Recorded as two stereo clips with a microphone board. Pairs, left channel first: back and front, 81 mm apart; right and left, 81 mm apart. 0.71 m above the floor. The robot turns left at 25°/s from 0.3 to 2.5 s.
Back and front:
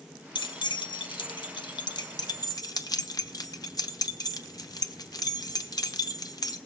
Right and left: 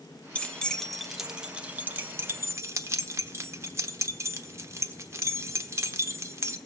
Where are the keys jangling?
165° right, 1.0 m; by 6.6 s 145° left, 1.0 m.